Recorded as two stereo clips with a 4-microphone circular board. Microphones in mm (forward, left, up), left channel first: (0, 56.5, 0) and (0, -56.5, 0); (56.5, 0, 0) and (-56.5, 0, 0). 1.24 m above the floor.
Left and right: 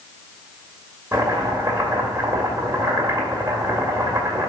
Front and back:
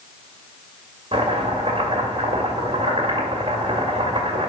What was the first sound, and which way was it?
Chopping, 150° right.